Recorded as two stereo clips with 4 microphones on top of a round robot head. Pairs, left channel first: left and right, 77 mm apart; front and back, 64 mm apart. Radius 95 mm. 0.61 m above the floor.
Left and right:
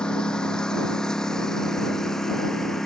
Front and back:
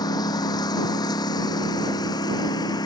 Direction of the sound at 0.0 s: 10° left.